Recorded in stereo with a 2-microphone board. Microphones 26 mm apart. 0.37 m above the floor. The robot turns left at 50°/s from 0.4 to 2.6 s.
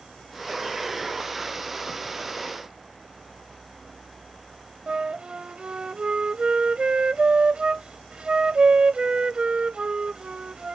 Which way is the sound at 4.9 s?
40° right (ahead or behind).